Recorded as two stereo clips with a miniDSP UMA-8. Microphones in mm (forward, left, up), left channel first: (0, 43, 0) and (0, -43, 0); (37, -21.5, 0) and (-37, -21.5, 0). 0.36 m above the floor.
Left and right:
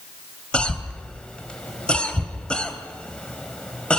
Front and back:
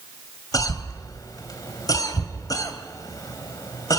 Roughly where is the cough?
Ahead.